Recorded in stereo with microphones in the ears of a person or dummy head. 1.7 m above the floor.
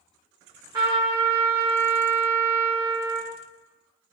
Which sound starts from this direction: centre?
A trumpet, at 0.7 s.